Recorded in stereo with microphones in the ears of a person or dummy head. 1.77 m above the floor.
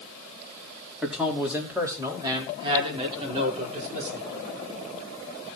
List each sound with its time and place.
1.0 s a man speaking: 5° left (ahead or behind), 4 m; by 4.2 s 40° right (ahead or behind), 5.5 m